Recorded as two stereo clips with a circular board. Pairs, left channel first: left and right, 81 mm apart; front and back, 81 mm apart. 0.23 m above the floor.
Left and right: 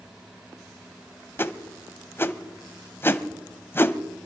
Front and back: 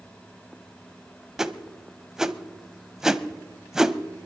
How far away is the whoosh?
About 0.6 m.